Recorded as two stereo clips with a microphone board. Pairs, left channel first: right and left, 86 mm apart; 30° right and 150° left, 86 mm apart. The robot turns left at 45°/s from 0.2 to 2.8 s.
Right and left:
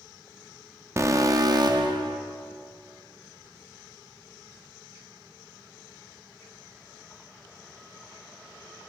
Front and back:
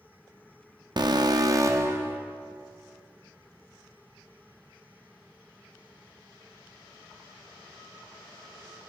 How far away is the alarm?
About 0.7 m.